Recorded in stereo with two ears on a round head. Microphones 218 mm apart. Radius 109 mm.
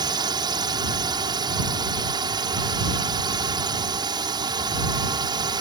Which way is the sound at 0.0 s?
20° right (ahead or behind).